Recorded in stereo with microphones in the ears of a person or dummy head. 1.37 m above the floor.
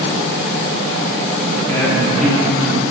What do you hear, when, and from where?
1.6 s a woman speaking: 10° left (ahead or behind), 2.5 m; by 2.9 s 15° right (ahead or behind), 1.3 m